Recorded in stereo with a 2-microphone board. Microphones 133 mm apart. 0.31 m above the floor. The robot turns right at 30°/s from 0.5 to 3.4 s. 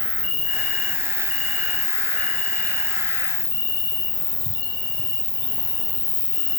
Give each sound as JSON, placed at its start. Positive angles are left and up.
{"t": 0.0, "sound": "an insect", "azimuth_deg": -115, "distance_m": 1.1}